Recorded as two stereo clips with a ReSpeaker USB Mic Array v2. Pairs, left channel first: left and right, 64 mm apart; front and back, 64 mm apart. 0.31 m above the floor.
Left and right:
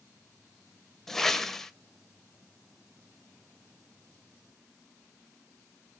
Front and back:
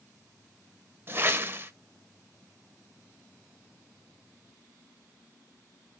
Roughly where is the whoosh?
Behind.